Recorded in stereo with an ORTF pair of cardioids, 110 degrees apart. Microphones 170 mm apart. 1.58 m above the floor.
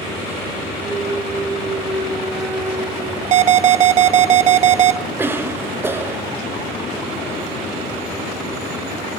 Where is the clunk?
Straight ahead, 2.5 m.